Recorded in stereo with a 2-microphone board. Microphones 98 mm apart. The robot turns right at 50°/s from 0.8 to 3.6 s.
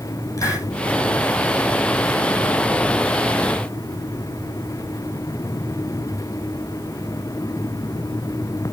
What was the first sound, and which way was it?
A hiss, 30° left (ahead or behind).